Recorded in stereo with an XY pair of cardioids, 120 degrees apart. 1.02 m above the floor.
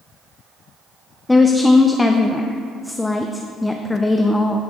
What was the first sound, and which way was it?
A woman speaking, 10° left.